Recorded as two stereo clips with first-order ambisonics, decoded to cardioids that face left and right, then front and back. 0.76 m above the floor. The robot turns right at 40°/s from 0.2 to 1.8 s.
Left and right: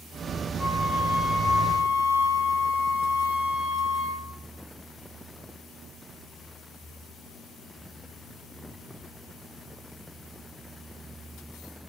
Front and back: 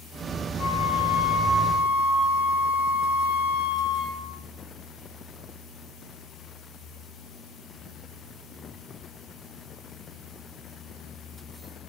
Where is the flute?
10° left, 4 m; by 4.4 s 60° left, 4 m.